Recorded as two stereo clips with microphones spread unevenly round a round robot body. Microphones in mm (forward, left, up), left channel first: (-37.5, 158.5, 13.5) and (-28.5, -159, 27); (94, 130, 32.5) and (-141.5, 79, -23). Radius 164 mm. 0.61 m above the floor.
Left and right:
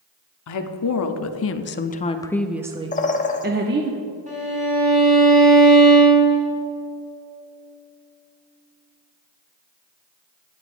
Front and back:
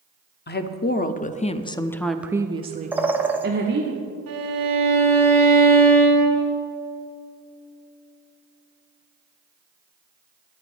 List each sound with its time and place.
0.5 s a woman speaking: 65° left, 1.0 m; by 3.9 s 140° right, 1.0 m
2.9 s a bird: 135° left, 1.0 m
4.3 s a violin: 155° right, 3.5 m